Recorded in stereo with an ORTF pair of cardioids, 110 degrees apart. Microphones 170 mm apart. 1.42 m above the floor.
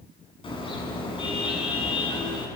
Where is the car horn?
30° left, 8 m.